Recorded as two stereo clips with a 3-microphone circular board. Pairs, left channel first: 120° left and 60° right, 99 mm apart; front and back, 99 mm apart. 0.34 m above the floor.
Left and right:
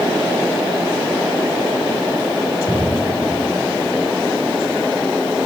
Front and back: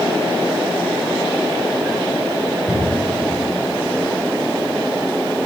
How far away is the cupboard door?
About 3.5 m.